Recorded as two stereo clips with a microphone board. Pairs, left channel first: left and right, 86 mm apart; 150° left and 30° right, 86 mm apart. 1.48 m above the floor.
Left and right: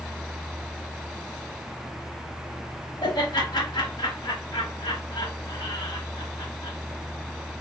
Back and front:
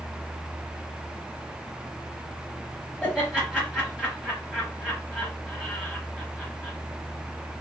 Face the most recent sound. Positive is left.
turn(degrees=55)